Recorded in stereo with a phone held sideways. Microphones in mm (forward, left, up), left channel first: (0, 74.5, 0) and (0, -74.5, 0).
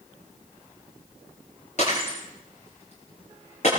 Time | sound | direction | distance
1.8 | breaking glass | 50° left (ahead or behind) | 8.5 m